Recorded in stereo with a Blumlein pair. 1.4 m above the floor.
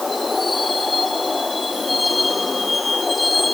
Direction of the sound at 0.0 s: 10° left.